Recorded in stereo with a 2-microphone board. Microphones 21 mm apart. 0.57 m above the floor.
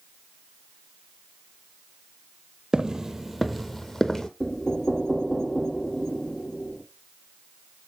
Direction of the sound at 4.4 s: 25° left (ahead or behind).